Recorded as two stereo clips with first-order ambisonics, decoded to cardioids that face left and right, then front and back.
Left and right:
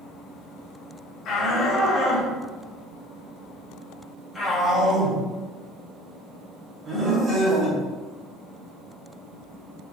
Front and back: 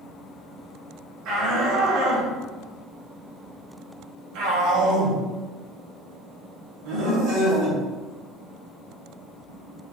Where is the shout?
145° left, 3 m; by 7.8 s 155° right, 4 m.